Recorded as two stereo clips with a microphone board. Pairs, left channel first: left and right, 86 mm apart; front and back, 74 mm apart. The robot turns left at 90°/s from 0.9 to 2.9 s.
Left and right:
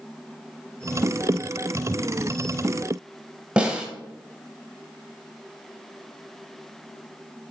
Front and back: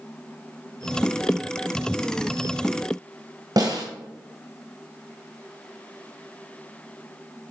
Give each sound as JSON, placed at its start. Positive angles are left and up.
{"t": 3.6, "sound": "a snare drum", "azimuth_deg": -165, "distance_m": 1.5}